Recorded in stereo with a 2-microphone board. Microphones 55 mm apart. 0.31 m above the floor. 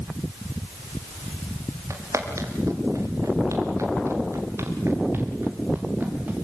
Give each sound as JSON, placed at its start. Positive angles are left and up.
{"t": 1.9, "sound": "footsteps", "side_deg": -80, "distance_m": 4.5}